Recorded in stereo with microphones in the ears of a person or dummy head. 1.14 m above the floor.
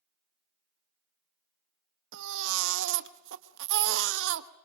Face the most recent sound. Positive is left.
turn(degrees=-70)  # may be behind; listen again after turning